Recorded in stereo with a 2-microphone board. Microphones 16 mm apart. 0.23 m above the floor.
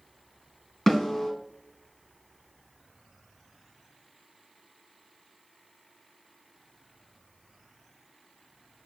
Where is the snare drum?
25° left (ahead or behind), 2.0 m.